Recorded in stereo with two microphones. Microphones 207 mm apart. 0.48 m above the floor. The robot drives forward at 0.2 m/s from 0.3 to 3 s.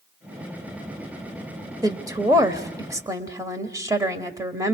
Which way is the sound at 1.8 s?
20° right (ahead or behind).